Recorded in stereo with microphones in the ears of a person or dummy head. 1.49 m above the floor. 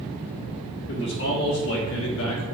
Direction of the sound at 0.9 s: 65° left (ahead or behind).